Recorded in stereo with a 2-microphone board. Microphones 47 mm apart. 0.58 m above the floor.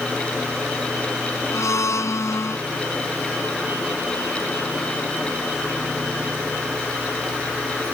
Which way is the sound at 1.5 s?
85° left.